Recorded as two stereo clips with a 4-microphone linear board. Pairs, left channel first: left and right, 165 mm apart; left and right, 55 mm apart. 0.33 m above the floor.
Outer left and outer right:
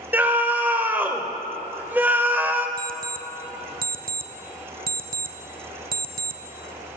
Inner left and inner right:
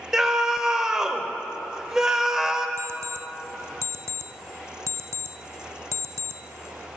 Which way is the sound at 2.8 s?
60° right (ahead or behind).